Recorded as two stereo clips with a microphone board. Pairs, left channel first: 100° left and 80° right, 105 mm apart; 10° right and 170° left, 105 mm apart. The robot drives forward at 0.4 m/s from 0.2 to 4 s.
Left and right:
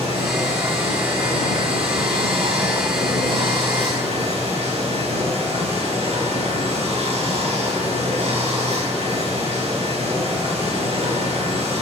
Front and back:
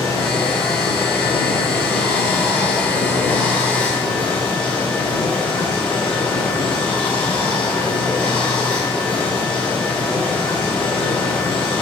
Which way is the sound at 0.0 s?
70° right.